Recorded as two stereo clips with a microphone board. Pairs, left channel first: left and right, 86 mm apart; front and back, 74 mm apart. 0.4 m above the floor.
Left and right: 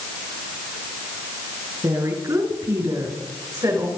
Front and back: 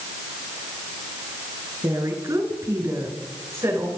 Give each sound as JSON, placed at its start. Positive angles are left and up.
{"t": 1.8, "sound": "a woman speaking", "azimuth_deg": -140, "distance_m": 6.5}